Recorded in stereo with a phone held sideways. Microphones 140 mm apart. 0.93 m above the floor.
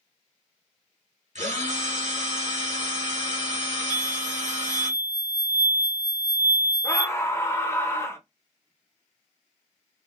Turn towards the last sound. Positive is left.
turn(degrees=20)  # may be behind; listen again after turning